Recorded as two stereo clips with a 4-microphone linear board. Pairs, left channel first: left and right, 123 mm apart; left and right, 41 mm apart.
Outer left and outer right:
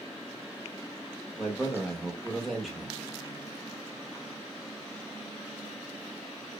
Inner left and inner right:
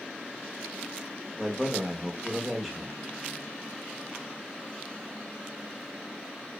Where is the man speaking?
Centre (ahead or behind), 0.8 m.